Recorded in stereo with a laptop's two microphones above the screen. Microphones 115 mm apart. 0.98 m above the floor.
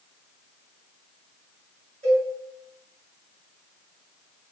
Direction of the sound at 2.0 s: 70° right (ahead or behind).